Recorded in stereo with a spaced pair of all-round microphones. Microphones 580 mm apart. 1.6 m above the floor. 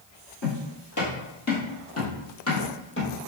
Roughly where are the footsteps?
Left.